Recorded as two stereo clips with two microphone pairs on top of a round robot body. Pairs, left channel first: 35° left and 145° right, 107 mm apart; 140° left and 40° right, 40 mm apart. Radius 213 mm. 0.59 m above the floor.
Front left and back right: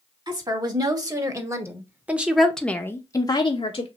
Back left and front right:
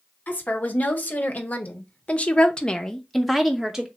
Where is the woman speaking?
Straight behind, 1.8 m; by 3.9 s 25° left, 1.0 m.